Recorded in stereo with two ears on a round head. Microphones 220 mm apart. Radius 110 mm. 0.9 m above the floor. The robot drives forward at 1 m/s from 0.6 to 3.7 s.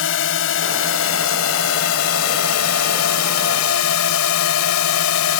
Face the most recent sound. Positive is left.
turn(degrees=70)  # may be behind; listen again after turning